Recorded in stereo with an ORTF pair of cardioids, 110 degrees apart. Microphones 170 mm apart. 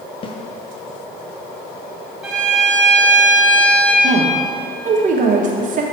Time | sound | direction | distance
0.2 | a snare drum | 30° left | 0.8 m
2.2 | a violin | straight ahead | 1.9 m
4.0 | a woman speaking | 50° right | 1.3 m